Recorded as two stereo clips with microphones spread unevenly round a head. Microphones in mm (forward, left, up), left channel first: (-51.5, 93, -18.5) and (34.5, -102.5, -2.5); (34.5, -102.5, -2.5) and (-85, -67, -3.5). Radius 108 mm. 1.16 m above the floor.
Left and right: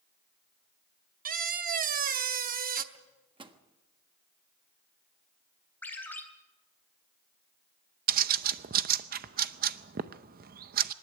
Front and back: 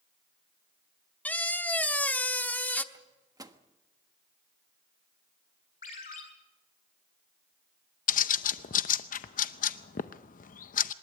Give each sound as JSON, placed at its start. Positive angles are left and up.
{"t": 1.2, "sound": "a squeak", "azimuth_deg": -90, "distance_m": 0.9}
{"t": 2.9, "sound": "a microwave", "azimuth_deg": -135, "distance_m": 1.4}
{"t": 5.8, "sound": "a ringtone", "azimuth_deg": 30, "distance_m": 3.0}
{"t": 8.1, "sound": "a bird", "azimuth_deg": -15, "distance_m": 0.6}